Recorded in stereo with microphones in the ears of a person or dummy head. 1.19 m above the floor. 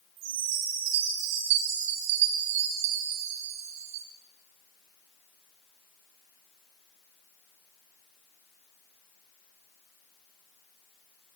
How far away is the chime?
About 2.0 m.